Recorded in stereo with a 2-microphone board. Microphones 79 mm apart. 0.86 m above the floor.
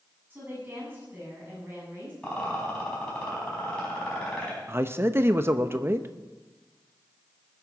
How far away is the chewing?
No chewing in this recording.